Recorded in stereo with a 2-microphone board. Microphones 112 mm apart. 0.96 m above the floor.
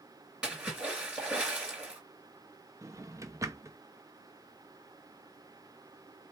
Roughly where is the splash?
Centre.